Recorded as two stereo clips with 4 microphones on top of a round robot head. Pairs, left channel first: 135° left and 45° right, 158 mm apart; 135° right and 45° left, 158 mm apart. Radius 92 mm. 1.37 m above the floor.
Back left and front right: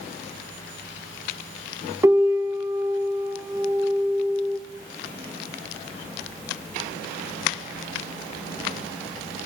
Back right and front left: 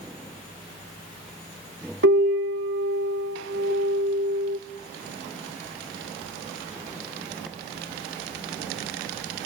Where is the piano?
30° left, 2.5 m.